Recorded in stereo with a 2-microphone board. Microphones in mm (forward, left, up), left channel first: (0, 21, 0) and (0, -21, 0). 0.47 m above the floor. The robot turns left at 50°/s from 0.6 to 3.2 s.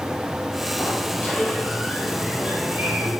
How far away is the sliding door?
About 3 m.